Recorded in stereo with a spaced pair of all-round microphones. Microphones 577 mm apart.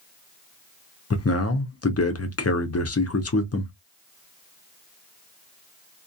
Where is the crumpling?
I don't hear crumpling.